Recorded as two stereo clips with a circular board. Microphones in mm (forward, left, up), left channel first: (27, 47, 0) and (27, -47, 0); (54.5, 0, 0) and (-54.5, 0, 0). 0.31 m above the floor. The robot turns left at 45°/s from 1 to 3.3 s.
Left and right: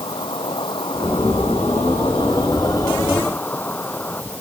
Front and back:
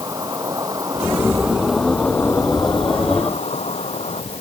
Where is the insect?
120° left; by 4.4 s 20° left.